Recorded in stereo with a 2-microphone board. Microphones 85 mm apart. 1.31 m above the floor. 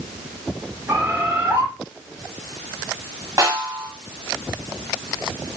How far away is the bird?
About 1.4 m.